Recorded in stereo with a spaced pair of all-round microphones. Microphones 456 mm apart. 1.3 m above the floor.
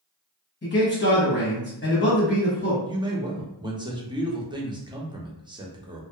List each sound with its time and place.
0.6 s a man speaking: 25° left (ahead or behind), 1.0 m
2.9 s a man speaking: 10° right (ahead or behind), 0.5 m